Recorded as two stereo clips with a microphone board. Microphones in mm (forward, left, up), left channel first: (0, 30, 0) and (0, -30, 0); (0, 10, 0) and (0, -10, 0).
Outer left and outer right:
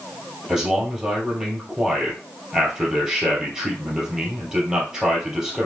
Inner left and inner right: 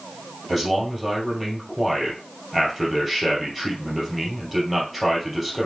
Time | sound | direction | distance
0.5 | a man speaking | 10° right (ahead or behind) | 2 m